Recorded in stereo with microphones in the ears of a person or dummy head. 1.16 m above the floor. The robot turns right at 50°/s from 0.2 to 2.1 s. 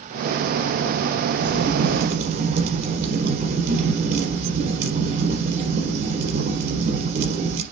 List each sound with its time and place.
1.4 s a crack: 95° right, 4.5 m; by 7.6 s 60° right, 4.5 m